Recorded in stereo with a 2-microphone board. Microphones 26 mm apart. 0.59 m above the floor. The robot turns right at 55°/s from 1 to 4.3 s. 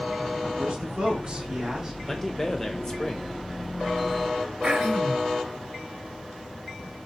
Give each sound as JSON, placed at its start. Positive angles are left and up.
{"t": 0.6, "sound": "a man speaking", "azimuth_deg": -70, "distance_m": 1.4}
{"t": 2.1, "sound": "a man speaking", "side_deg": 10, "distance_m": 0.7}
{"t": 4.6, "sound": "throat clearing", "side_deg": -50, "distance_m": 1.5}